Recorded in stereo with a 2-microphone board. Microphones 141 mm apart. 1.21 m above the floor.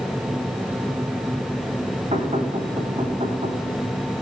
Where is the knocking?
65° right (ahead or behind), 4.5 m.